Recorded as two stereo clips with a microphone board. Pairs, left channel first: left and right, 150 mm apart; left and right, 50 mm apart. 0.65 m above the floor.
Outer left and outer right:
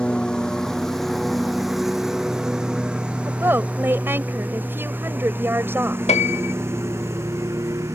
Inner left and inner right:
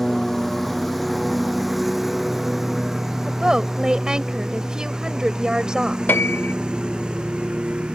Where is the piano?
45° left (ahead or behind).